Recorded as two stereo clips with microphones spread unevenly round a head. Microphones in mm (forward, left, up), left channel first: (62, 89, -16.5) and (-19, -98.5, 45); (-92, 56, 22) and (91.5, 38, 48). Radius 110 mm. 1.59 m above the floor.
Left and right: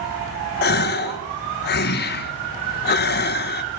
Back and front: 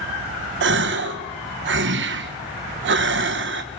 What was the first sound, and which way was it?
A gasp, 20° left.